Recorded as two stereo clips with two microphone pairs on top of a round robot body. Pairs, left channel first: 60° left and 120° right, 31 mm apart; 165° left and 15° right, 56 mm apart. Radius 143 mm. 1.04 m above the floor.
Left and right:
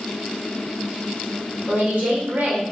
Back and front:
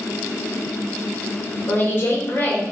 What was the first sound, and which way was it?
A woman speaking, 150° right.